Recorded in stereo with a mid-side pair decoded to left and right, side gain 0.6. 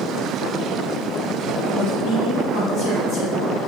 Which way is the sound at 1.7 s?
65° left.